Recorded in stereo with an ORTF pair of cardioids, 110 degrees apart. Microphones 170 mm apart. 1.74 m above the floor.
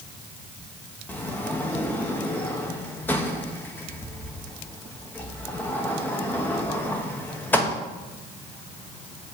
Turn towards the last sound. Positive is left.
turn(degrees=10)